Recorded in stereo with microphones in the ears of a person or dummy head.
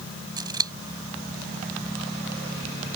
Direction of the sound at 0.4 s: 20° right (ahead or behind).